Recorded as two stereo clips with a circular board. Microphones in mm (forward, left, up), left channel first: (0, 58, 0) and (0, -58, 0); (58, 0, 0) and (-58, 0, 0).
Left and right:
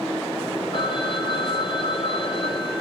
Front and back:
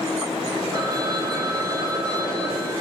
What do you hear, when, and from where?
0.7 s a phone ringing: 125° left, 2.5 m